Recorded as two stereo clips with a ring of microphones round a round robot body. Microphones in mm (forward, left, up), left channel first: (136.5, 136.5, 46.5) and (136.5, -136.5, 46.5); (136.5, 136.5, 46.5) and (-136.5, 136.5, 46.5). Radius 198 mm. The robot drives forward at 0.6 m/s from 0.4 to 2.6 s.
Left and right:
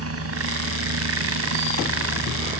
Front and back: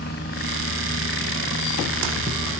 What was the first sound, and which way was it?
A helicopter, 60° right.